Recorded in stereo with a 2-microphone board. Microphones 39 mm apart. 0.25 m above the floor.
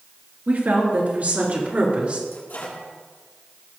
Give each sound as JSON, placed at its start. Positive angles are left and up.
{"t": 0.5, "sound": "a woman speaking", "side_deg": -50, "distance_m": 4.0}
{"t": 2.3, "sound": "a microwave", "side_deg": 55, "distance_m": 5.5}